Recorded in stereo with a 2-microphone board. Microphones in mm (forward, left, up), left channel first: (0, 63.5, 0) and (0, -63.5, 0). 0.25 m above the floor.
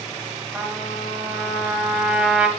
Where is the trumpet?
10° right (ahead or behind), 1.3 m.